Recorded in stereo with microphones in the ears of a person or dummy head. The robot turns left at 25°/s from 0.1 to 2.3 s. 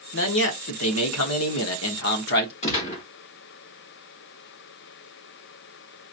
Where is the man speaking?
115° left, 1.1 m; by 2.5 s 60° left, 1.1 m.